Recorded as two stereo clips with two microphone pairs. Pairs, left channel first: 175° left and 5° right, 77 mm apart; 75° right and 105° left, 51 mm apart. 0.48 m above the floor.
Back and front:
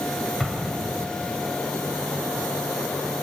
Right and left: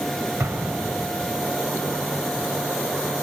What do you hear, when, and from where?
0.4 s an explosion: 85° left, 2.5 m